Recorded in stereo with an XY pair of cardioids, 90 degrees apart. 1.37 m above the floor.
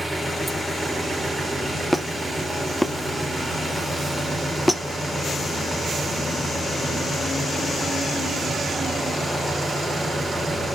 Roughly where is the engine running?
Ahead.